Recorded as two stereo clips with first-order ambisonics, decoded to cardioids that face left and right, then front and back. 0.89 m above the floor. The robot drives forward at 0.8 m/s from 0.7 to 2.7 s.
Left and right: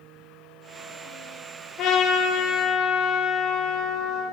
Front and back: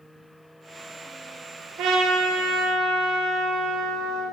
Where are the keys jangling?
No keys jangling in this recording.